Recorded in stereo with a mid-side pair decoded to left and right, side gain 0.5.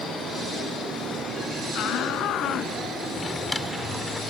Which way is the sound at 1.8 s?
65° left.